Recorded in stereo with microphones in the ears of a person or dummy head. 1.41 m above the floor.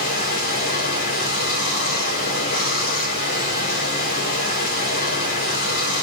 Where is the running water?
45° left (ahead or behind), 4.5 m.